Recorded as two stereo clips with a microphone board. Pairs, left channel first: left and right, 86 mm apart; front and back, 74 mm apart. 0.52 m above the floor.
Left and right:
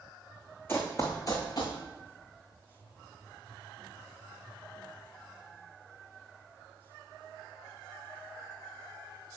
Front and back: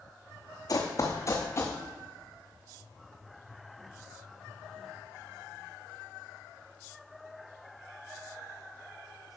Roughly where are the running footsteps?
Ahead left.